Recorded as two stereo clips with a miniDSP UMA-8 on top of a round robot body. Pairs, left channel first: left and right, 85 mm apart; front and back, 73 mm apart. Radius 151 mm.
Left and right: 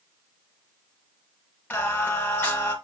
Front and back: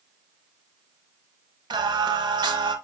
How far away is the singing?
About 0.7 m.